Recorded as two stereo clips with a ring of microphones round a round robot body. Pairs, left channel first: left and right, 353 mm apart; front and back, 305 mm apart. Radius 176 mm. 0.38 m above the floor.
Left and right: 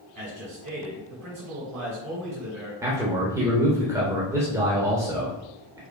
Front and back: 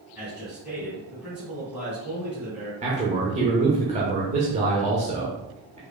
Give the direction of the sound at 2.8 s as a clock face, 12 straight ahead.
5 o'clock.